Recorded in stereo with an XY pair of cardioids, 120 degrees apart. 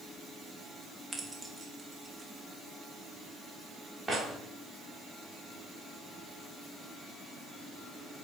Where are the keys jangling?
15° right, 1.2 m; by 4.2 s 25° right, 3 m.